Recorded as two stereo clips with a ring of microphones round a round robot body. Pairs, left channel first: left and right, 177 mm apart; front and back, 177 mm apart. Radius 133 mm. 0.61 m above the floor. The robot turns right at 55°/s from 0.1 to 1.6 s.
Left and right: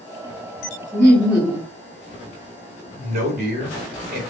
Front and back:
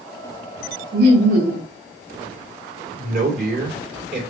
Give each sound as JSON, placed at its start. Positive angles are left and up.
{"t": 0.9, "sound": "laughter", "azimuth_deg": 165, "distance_m": 1.6}
{"t": 2.9, "sound": "a man speaking", "azimuth_deg": -135, "distance_m": 2.5}